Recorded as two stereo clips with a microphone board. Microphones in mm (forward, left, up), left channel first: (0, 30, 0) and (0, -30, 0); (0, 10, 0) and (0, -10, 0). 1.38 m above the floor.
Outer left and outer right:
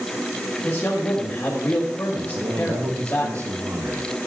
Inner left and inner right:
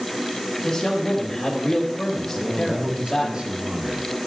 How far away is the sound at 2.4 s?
About 2.5 m.